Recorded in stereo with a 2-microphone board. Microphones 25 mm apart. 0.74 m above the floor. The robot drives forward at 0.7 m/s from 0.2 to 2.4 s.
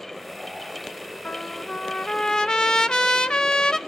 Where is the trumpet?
85° left, 0.5 m; by 3.8 s 35° left (ahead or behind), 1.0 m.